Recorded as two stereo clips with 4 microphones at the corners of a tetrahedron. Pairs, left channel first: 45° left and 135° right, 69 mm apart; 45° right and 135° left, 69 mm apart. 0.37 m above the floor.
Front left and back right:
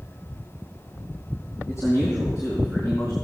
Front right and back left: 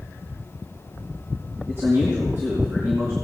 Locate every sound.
1.7 s a man speaking: 85° left, 3 m